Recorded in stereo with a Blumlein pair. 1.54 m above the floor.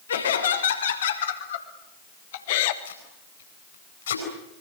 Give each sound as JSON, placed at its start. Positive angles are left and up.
{"t": 0.1, "sound": "laughter", "azimuth_deg": 70, "distance_m": 6.0}
{"t": 2.9, "sound": "tape being pulled", "azimuth_deg": 65, "distance_m": 9.5}